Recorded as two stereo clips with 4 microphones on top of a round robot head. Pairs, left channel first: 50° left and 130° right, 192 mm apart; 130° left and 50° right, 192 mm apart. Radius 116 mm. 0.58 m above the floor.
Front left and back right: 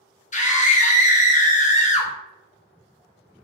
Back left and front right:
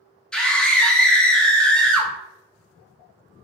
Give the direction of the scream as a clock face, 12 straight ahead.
10 o'clock.